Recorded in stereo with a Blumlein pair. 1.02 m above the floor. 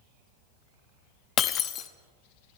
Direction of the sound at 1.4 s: 30° left.